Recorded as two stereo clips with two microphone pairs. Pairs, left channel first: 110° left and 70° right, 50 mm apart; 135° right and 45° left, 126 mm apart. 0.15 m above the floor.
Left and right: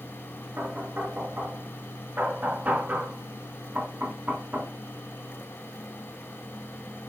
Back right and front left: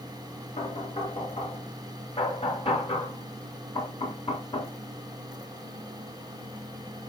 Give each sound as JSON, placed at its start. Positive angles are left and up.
{"t": 0.6, "sound": "knocking", "azimuth_deg": -115, "distance_m": 1.4}